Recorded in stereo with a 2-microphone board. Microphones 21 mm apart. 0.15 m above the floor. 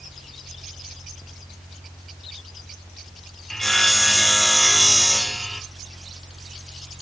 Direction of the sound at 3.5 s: 15° left (ahead or behind).